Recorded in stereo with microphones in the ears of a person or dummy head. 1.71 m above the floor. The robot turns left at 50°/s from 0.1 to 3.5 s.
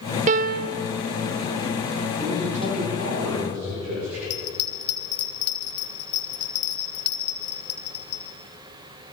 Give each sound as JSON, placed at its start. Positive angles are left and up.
{"t": 0.3, "sound": "a piano", "side_deg": -45, "distance_m": 0.7}
{"t": 2.2, "sound": "a man speaking", "azimuth_deg": -30, "distance_m": 6.5}
{"t": 4.3, "sound": "a bell", "side_deg": 60, "distance_m": 3.5}